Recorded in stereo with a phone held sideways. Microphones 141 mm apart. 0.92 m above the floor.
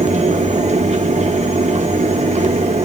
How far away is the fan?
About 0.8 m.